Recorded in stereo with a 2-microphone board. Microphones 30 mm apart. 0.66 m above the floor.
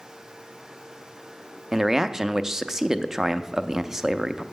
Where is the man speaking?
20° right (ahead or behind), 0.5 m.